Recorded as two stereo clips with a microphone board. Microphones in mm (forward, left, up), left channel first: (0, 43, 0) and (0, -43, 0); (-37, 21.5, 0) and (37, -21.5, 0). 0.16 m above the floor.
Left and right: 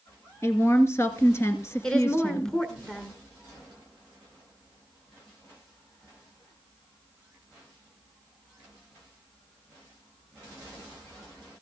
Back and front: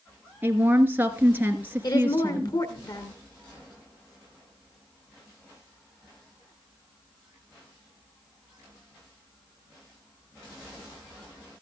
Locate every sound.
0.4 s a woman speaking: 35° left, 2 m
1.8 s a woman speaking: 170° left, 1.8 m